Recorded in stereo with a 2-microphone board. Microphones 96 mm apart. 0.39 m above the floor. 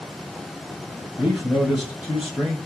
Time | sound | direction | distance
1.2 | a man speaking | 15° right (ahead or behind) | 1.6 m